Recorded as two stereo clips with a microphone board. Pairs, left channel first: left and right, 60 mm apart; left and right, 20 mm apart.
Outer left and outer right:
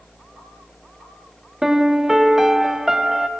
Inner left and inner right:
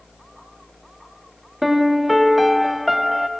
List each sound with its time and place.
1.6 s a piano: 10° right (ahead or behind), 0.7 m